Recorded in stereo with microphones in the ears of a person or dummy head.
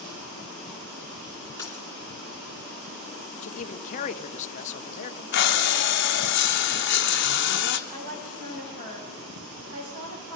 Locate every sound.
1.6 s a dropped coin: 10° left (ahead or behind), 2.5 m
3.4 s a man speaking: 50° left (ahead or behind), 0.9 m
5.3 s breathing: 55° left (ahead or behind), 1.0 m
7.9 s a woman speaking: 60° right (ahead or behind), 7 m